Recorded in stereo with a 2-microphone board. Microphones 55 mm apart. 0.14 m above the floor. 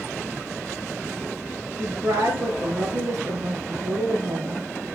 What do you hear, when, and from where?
1.8 s a woman speaking: 60° right (ahead or behind), 2.5 m